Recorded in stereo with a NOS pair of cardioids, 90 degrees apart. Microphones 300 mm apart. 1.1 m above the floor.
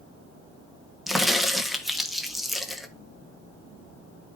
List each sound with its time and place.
1.1 s a crack: straight ahead, 1.6 m